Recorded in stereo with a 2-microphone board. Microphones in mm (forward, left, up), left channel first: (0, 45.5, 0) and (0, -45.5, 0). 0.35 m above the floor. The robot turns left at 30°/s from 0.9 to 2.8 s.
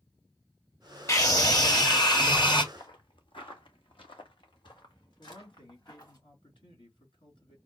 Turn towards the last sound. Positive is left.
turn(degrees=65)  # may be behind; listen again after turning